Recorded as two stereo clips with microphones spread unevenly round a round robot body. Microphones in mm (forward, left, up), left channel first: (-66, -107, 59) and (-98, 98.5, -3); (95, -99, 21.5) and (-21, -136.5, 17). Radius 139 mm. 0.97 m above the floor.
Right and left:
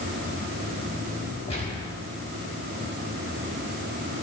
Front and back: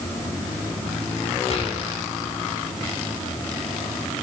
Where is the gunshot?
10° right, 5 m.